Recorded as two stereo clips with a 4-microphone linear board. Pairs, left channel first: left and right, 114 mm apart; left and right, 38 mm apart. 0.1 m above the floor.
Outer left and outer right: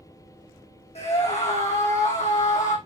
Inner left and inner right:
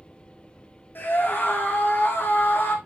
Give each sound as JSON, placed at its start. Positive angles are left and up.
{"t": 0.9, "sound": "a scream", "side_deg": 60, "distance_m": 4.0}